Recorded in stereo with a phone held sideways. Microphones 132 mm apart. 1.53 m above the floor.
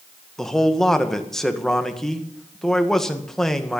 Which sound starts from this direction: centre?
A man speaking, at 0.4 s.